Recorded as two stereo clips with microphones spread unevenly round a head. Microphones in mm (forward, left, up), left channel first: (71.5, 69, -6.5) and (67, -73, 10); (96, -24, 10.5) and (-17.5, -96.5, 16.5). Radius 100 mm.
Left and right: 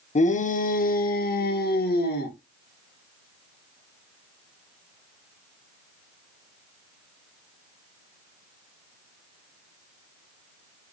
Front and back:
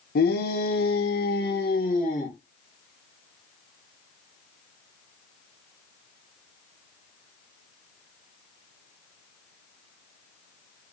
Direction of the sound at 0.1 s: 50° left.